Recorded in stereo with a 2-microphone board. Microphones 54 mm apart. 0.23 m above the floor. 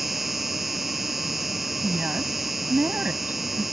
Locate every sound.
0.0 s an insect: centre (ahead or behind)
1.8 s a woman speaking: 30° right (ahead or behind)